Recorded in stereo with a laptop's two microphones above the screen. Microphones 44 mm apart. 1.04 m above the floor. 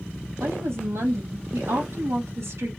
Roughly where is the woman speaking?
Right.